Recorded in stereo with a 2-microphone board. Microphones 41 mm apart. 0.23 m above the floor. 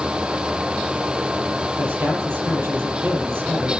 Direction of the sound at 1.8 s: 75° right (ahead or behind).